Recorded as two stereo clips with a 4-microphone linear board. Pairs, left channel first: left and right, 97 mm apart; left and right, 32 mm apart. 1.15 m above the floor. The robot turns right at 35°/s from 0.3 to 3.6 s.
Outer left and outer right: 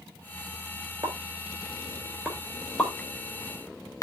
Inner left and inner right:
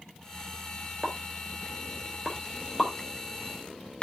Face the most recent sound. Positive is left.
turn(degrees=35)  # may be behind; listen again after turning